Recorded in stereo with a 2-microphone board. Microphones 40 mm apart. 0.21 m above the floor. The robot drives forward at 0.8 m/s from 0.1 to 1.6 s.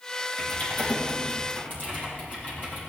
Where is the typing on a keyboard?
55° left (ahead or behind), 4.5 m; by 2.8 s 45° left (ahead or behind), 5 m.